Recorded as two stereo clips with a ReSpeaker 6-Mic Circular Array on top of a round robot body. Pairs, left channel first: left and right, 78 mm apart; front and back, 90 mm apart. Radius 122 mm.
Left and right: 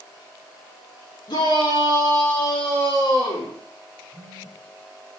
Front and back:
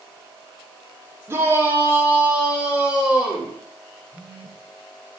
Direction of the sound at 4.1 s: 50° left.